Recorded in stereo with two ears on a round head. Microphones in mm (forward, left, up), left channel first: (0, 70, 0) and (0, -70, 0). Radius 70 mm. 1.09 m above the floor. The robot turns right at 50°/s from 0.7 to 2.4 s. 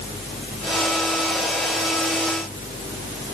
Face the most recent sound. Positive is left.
No sound to turn to.